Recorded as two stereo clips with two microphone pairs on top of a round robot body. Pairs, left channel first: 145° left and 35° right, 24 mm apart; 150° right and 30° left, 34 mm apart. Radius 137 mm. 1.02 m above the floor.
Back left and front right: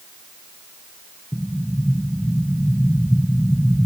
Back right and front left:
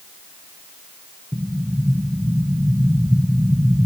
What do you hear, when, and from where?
1.3 s an explosion: 80° left, 1.3 m